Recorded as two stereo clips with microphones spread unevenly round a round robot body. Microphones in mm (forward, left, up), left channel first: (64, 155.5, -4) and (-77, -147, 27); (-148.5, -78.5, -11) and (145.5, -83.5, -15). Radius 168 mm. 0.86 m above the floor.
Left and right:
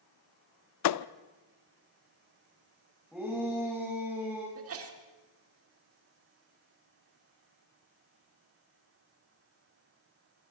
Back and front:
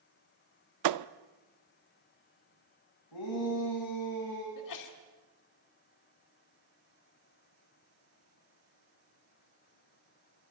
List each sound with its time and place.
0.8 s a thud: 20° left, 0.5 m
3.1 s a shout: 155° left, 6 m
4.5 s a sneeze: 165° right, 2.5 m